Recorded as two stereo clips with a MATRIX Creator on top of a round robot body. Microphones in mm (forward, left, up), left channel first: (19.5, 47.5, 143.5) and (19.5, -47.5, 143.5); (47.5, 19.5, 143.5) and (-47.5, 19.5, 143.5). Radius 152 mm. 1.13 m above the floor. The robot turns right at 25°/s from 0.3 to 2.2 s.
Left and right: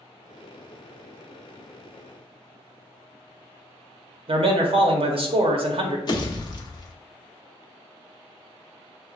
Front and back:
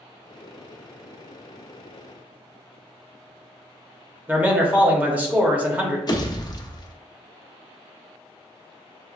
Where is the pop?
45° left, 0.9 m.